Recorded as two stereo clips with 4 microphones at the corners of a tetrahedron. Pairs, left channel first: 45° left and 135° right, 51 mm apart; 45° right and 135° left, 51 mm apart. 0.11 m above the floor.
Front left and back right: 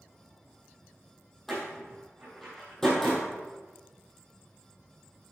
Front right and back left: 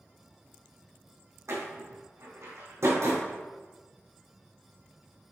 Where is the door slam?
125° left, 3.5 m.